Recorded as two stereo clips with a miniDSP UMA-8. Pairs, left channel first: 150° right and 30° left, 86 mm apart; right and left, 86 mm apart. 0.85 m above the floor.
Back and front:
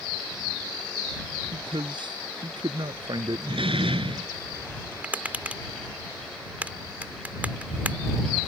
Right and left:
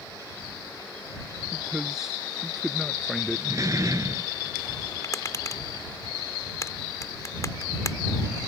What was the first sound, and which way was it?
A man speaking, 10° left.